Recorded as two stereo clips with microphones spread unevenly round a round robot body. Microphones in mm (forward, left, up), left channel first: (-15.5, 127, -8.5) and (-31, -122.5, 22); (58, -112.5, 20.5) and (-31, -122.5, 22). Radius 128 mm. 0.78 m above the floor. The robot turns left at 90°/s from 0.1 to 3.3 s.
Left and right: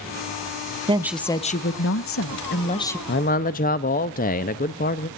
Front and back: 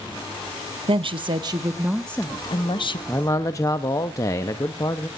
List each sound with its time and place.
0.9 s a woman speaking: 165° right, 1.1 m; by 3.0 s 5° left, 1.1 m
3.1 s a man speaking: 70° left, 0.6 m; by 5.1 s 50° left, 0.6 m